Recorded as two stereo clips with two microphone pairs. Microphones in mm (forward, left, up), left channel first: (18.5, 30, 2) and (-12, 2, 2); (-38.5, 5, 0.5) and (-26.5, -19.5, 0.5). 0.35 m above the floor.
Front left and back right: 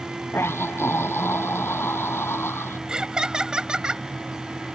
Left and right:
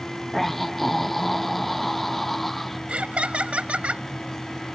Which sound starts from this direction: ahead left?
A scream, at 0.3 s.